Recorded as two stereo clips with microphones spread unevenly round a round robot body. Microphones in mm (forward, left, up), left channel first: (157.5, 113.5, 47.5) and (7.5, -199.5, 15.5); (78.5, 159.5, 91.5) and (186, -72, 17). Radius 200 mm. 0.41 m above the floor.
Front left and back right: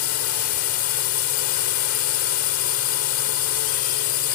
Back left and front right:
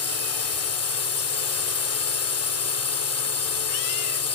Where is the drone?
105° left.